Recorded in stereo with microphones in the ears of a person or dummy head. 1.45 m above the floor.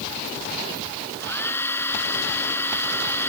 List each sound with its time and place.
1.2 s a hair dryer: 15° left (ahead or behind)